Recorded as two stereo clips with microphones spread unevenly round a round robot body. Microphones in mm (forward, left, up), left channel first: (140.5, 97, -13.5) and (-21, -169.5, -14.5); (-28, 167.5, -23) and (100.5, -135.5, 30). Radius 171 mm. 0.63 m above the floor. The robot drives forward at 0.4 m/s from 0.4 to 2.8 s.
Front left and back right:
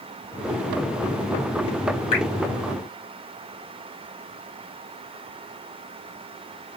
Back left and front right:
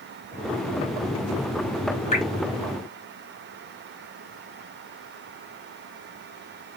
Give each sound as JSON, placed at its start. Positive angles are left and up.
{"t": 2.1, "sound": "dripping", "azimuth_deg": 55, "distance_m": 2.5}